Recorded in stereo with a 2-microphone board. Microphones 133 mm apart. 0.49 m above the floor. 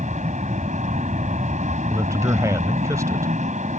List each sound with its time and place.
0.0 s an aircraft: 65° right (ahead or behind)
1.9 s a man speaking: 25° right (ahead or behind)